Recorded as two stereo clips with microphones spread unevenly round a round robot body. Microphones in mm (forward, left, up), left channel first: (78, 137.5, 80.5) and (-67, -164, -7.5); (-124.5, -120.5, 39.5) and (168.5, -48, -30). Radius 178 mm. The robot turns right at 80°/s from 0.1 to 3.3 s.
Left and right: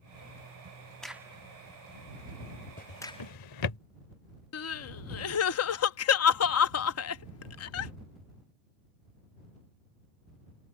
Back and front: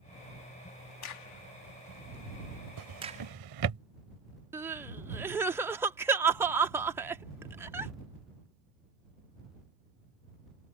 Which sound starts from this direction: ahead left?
Crying, at 4.5 s.